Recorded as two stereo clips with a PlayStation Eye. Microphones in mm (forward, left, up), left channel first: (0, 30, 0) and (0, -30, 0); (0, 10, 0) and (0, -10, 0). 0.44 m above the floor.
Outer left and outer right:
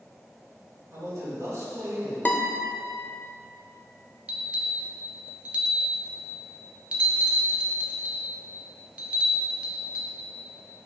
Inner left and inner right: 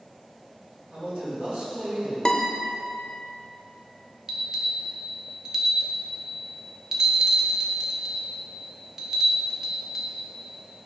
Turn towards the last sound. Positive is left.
turn(degrees=-20)  # may be behind; listen again after turning